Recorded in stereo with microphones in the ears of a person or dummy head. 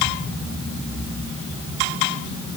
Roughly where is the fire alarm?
I don't hear a fire alarm.